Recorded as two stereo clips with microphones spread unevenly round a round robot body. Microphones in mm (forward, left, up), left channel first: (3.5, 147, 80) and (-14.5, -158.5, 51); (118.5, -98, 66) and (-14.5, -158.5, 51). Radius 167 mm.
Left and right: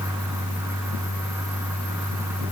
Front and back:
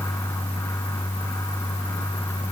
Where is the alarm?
I don't hear an alarm.